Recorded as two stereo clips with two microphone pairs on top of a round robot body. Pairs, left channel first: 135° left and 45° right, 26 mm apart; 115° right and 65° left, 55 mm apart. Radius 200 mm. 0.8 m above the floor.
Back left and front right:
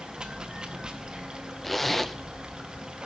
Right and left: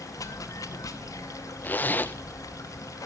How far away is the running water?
About 0.7 m.